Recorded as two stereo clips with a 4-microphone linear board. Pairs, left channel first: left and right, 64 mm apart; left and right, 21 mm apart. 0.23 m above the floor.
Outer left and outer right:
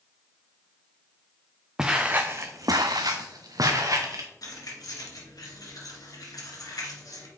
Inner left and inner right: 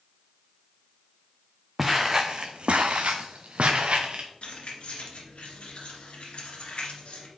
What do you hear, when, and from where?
1.8 s footsteps: 10° right (ahead or behind), 1.0 m; by 4.3 s 60° right (ahead or behind), 1.9 m
4.4 s keys jangling: 65° left (ahead or behind), 2.0 m